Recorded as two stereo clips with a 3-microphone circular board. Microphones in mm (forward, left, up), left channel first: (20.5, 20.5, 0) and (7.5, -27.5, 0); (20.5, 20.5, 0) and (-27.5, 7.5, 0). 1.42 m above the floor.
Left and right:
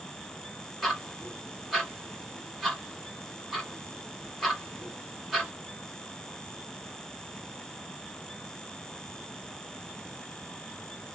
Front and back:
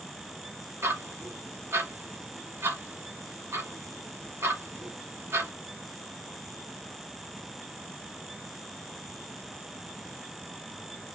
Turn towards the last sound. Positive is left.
turn(degrees=170)